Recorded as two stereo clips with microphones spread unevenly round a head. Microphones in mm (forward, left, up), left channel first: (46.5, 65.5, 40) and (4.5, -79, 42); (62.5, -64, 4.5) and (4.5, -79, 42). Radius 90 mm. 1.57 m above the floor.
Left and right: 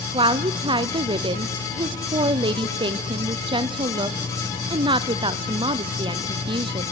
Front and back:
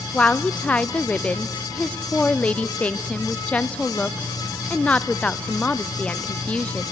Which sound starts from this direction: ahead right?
A woman speaking, at 0.1 s.